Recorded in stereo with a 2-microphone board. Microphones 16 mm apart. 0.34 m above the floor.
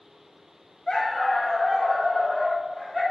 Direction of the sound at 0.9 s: 45° left (ahead or behind).